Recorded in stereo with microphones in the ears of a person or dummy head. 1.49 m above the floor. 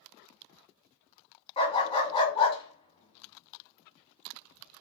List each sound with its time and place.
1.6 s a dog barking: 30° left (ahead or behind), 1.4 m